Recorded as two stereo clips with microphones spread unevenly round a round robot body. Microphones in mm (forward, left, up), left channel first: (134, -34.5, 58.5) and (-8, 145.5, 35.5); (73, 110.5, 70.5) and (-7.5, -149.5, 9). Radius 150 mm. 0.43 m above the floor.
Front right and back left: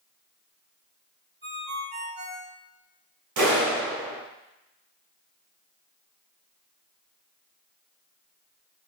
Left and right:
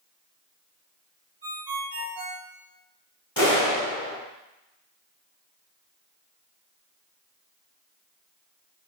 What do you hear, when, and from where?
1.4 s a ringtone: 165° right, 1.8 m
3.4 s a clap: 150° left, 3 m